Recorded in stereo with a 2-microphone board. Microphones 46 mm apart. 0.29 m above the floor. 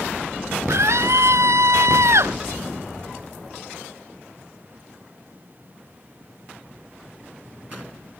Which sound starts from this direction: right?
A scream, at 0.7 s.